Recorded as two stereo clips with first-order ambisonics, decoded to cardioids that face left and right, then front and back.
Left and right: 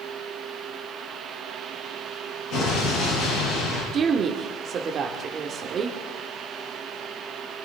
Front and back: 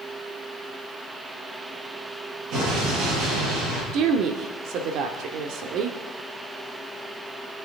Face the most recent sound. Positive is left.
turn(degrees=-150)